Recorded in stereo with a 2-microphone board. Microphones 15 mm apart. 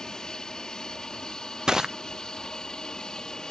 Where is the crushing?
45° right (ahead or behind).